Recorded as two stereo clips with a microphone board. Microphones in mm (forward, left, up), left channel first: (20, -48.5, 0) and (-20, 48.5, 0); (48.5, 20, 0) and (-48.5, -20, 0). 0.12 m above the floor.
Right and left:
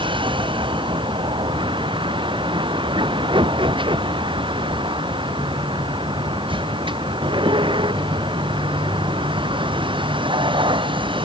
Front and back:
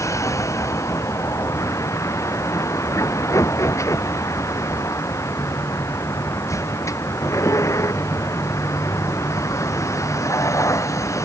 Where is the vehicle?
80° left.